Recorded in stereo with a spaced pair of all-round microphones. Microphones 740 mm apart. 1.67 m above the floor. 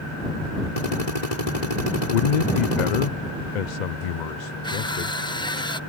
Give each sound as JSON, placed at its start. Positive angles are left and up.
{"t": 0.8, "sound": "a drill", "side_deg": 65}
{"t": 2.1, "sound": "a man speaking", "side_deg": 75}
{"t": 4.6, "sound": "crushing", "side_deg": 5}